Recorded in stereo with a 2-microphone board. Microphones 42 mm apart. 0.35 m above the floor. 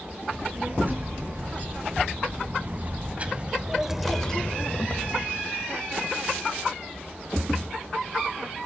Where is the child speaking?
50° right (ahead or behind), 6 m; by 5.3 s 50° left (ahead or behind), 1.8 m.